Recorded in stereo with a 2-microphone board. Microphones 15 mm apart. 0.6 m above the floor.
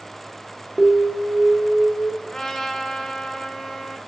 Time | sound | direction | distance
0.8 | an alarm | 5° left (ahead or behind) | 1.7 m
2.2 | a trumpet | 45° left (ahead or behind) | 1.5 m